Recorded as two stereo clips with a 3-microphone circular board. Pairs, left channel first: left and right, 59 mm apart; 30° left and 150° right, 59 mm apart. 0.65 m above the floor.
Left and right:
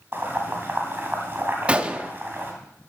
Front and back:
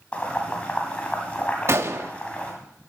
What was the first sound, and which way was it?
Boiling, 40° right.